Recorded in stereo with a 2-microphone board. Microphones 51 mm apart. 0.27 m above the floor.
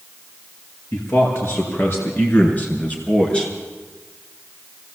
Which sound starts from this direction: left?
A man speaking, at 0.9 s.